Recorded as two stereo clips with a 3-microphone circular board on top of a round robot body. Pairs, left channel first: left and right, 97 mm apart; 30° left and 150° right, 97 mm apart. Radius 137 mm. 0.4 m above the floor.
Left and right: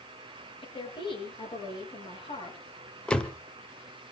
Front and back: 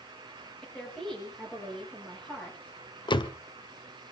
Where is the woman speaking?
115° left, 8 m.